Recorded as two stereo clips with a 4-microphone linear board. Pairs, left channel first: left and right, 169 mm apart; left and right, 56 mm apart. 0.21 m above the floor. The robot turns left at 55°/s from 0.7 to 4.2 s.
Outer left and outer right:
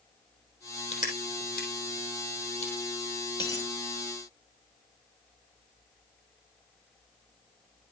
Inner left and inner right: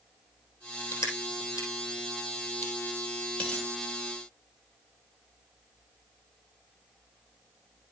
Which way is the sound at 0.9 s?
40° left (ahead or behind).